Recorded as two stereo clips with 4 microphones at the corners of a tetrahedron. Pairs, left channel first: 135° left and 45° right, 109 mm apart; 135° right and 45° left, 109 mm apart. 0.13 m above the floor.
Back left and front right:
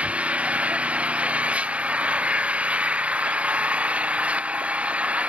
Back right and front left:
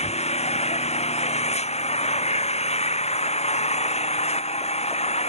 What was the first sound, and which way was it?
An engine running, 125° right.